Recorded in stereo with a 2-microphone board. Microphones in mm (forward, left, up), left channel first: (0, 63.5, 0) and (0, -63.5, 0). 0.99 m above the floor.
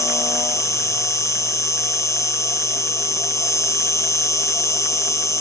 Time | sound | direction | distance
0.0 | an insect | 25° left (ahead or behind) | ?